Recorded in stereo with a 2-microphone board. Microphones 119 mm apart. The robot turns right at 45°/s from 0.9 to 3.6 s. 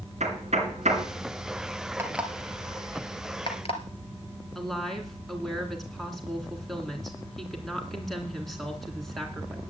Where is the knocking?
70° right (ahead or behind), 2.5 m.